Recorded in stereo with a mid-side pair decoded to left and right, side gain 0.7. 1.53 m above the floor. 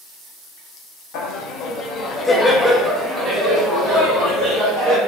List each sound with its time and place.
1.1 s laughter: 65° left, 0.8 m; by 5.0 s 40° right, 1.5 m